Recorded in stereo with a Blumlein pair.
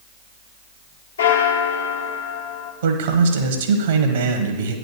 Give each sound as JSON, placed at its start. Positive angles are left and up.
{"t": 1.2, "sound": "a bell", "azimuth_deg": 70, "distance_m": 1.5}
{"t": 2.8, "sound": "a man speaking", "azimuth_deg": -60, "distance_m": 1.4}